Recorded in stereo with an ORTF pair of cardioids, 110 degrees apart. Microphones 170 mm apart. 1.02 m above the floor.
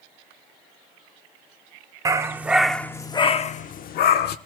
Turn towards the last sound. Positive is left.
turn(degrees=80)